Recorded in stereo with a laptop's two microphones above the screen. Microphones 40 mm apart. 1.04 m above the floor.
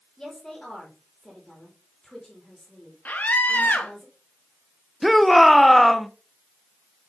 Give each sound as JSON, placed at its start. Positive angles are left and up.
{"t": 0.2, "sound": "a woman speaking", "side_deg": 15, "distance_m": 2.0}
{"t": 3.0, "sound": "a scream", "side_deg": 45, "distance_m": 1.6}
{"t": 5.0, "sound": "a shout", "side_deg": 0, "distance_m": 0.5}